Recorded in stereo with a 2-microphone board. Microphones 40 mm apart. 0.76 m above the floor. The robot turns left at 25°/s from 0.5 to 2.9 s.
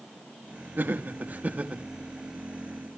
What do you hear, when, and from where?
0.8 s laughter: 50° right (ahead or behind), 1.3 m; by 1.8 s 35° right (ahead or behind), 1.3 m